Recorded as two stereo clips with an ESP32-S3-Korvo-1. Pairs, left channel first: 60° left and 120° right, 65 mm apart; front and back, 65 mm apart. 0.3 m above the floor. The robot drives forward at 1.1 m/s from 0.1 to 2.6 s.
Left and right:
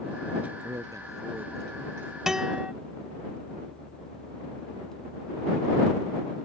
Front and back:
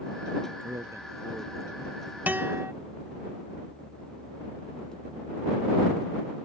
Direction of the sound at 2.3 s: 165° left.